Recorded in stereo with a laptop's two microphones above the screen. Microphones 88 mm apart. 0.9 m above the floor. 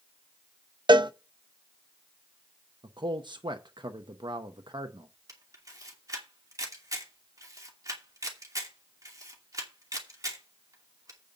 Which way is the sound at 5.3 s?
40° right (ahead or behind).